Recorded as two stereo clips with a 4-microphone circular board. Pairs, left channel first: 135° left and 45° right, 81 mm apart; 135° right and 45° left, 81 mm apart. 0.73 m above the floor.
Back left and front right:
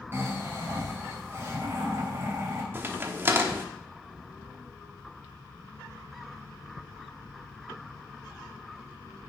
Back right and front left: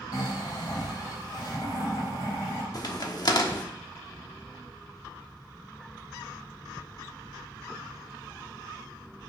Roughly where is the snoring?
Right.